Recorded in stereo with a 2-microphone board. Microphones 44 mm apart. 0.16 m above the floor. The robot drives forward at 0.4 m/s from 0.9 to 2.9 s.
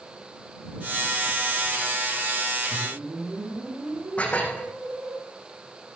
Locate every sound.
2.7 s a whoosh: 85° right, 9.5 m
4.2 s dishes clattering: 35° left (ahead or behind), 5.5 m